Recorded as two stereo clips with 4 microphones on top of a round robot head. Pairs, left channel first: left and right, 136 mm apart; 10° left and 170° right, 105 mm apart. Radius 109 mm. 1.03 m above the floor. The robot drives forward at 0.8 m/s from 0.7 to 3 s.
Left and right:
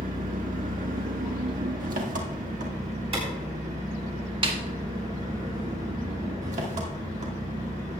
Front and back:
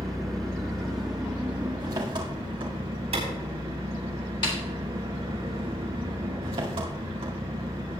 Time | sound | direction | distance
0.0 | an engine running | 75° right | 1.7 m
3.1 | a clap | 140° right | 5 m
4.4 | a snare drum | 40° right | 1.9 m